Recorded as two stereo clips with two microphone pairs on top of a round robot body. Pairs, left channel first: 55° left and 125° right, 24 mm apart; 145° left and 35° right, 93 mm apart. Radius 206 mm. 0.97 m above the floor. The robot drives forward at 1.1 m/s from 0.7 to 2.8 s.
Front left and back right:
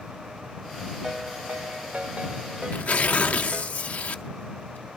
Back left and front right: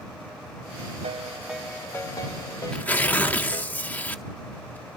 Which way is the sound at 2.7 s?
60° left.